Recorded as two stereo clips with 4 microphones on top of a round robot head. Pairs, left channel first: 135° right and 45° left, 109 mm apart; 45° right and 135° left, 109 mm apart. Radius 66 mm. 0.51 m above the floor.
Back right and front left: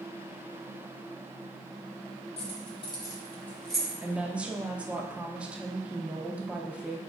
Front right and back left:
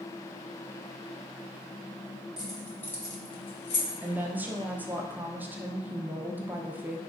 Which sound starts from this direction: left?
A woman speaking, at 4.0 s.